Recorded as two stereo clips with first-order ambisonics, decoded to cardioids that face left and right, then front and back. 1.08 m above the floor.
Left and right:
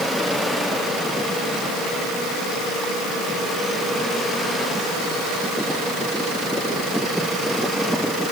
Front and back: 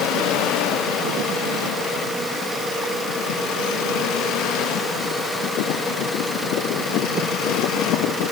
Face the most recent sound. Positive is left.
No sound to turn to.